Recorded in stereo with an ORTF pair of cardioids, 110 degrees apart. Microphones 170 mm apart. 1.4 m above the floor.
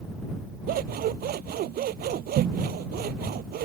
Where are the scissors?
65° right.